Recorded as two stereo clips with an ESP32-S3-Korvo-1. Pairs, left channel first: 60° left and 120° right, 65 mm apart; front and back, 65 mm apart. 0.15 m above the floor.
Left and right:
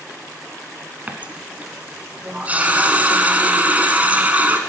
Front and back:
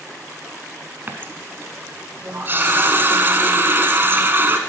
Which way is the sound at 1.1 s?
165° right.